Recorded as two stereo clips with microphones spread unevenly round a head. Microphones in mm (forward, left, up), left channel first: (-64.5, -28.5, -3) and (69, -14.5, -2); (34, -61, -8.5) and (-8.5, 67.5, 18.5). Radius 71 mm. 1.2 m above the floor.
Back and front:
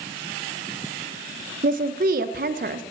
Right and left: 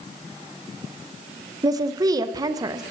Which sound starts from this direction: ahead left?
A woman speaking, at 1.6 s.